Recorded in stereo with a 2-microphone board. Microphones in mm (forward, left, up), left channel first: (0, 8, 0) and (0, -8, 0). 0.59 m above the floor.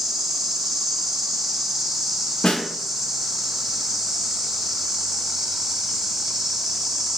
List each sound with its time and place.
0.0 s an insect: 25° right (ahead or behind), 2 m
2.4 s a snare drum: 60° left (ahead or behind), 0.5 m